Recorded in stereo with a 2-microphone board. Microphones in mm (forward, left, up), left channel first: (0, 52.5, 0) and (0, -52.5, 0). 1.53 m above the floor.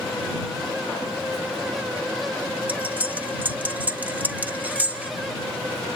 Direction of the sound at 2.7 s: 15° right (ahead or behind).